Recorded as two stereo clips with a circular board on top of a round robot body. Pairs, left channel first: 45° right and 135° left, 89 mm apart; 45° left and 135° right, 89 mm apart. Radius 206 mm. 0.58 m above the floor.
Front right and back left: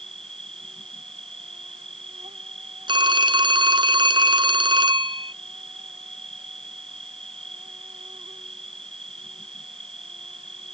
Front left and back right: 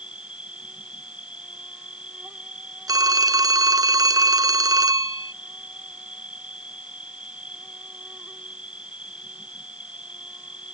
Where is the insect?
145° left.